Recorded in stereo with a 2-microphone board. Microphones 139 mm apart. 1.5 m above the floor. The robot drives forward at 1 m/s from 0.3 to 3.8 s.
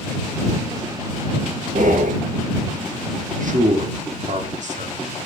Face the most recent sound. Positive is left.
turn(degrees=-60)  # may be behind; listen again after turning